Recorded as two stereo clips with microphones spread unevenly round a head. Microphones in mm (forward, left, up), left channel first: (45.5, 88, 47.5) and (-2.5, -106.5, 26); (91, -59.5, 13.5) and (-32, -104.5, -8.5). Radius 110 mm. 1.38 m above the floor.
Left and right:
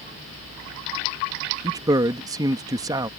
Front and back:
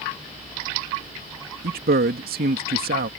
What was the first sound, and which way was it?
A man speaking, straight behind.